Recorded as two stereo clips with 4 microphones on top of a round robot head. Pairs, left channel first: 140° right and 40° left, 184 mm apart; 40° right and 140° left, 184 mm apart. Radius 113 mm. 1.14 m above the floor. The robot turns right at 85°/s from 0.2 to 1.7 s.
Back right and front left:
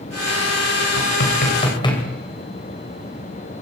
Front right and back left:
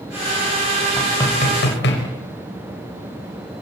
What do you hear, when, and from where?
1.0 s knocking: 135° right, 5 m; by 2.0 s 70° right, 5 m